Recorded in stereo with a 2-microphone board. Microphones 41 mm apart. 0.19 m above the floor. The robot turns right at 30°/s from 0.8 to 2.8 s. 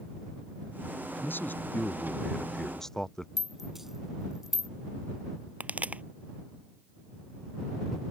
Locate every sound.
1.2 s a man speaking: 120° left; by 3.3 s 170° left
3.4 s a rattle: 5° right (ahead or behind)
5.6 s a pop: 35° right (ahead or behind)